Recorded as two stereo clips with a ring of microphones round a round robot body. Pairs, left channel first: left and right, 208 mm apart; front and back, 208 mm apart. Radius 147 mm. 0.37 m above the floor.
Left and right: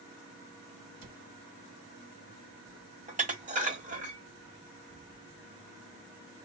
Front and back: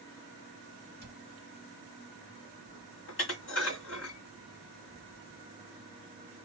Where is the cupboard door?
120° right, 0.9 m.